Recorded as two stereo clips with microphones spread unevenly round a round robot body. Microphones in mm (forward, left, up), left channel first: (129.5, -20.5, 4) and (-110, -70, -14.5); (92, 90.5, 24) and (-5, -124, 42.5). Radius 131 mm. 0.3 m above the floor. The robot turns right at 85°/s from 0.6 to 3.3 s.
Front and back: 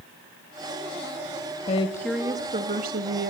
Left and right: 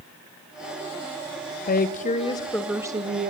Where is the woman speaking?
70° left, 1.1 m; by 3.3 s 155° right, 1.1 m.